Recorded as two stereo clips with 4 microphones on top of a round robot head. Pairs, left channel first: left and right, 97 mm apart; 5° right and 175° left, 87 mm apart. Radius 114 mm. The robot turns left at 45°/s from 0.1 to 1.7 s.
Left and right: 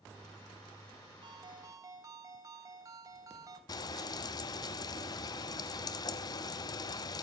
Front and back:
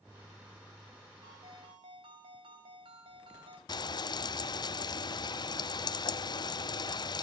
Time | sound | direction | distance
1.2 | a ringtone | 125° right | 3 m
3.7 | frying | 35° left | 0.7 m